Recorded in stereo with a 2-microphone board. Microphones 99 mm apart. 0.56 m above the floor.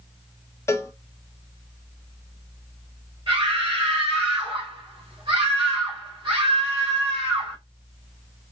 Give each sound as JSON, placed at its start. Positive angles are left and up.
{"t": 0.7, "sound": "a cowbell", "side_deg": 30, "distance_m": 0.9}
{"t": 3.3, "sound": "a scream", "side_deg": -50, "distance_m": 1.9}